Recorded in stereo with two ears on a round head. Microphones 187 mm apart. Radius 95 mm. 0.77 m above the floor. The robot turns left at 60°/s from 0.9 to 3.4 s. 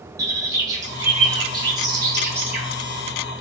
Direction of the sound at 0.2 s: 15° right (ahead or behind).